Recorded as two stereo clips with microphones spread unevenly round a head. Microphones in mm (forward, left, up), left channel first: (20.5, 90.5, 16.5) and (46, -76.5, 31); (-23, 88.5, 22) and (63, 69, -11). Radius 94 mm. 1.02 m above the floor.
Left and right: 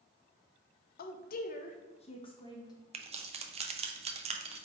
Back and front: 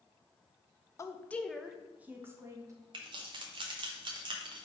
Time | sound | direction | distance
1.0 | a woman speaking | 100° left | 0.6 m
2.9 | keys jangling | 25° right | 0.5 m